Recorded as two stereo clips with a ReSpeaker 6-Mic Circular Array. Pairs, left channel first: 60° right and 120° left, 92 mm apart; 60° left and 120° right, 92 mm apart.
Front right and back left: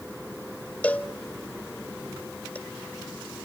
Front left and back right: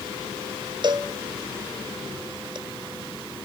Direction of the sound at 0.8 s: 130° right.